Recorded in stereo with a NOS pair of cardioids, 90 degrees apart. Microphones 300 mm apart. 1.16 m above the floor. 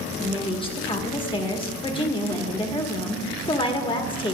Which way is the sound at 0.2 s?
15° left.